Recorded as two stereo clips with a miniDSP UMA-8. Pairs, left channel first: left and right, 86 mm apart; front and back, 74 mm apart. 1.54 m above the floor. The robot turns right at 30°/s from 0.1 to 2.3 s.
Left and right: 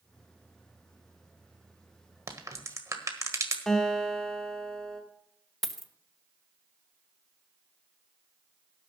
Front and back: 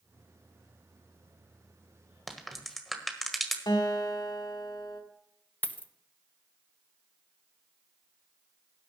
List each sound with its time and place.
2.3 s a crack: 90° right, 1.5 m
3.7 s a guitar: 5° left, 2 m
5.6 s a dropped coin: 5° left, 0.8 m